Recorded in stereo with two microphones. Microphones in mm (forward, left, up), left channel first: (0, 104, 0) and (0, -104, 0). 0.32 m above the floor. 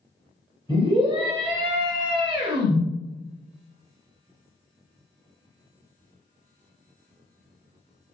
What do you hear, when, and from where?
0.7 s a scream: 25° right (ahead or behind), 1.3 m